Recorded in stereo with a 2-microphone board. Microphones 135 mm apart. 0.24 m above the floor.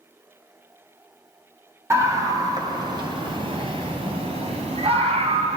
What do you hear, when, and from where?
1.9 s a scream: 20° right (ahead or behind), 1.6 m; by 5.6 s 55° right (ahead or behind), 2.5 m